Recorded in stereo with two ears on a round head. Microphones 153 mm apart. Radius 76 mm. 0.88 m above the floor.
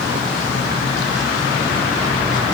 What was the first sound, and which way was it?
Only background noise.